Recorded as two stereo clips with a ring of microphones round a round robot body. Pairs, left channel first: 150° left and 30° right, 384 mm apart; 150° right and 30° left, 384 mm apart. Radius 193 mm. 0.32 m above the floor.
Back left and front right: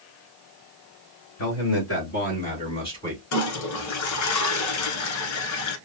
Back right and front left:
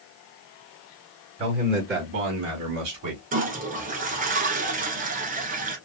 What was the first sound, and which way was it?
A man speaking, 105° left.